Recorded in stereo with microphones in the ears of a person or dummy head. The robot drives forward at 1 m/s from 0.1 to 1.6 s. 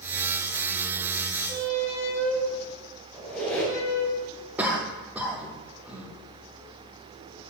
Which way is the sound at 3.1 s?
5° left (ahead or behind).